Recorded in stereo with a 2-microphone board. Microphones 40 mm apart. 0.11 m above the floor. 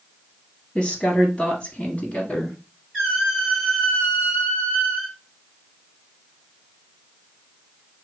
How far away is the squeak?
About 2.5 m.